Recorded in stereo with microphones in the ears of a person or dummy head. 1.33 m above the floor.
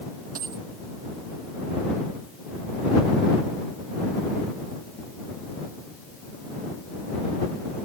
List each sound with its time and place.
0.3 s a dropped coin: 45° right (ahead or behind)